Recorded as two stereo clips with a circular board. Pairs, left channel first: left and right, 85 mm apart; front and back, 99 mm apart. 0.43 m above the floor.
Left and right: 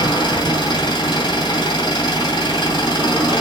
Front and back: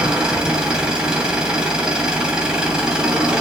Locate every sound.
0.0 s an engine running: 100° left, 2 m